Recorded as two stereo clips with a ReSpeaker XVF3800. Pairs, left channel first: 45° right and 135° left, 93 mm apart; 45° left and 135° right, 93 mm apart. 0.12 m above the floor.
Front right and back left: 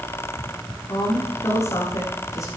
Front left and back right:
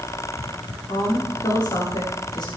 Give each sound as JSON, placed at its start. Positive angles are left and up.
{"t": 0.9, "sound": "a woman speaking", "azimuth_deg": 10, "distance_m": 7.0}